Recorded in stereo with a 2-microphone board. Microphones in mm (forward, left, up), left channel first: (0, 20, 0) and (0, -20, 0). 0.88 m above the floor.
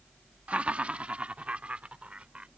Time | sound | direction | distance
0.5 | laughter | 30° right (ahead or behind) | ?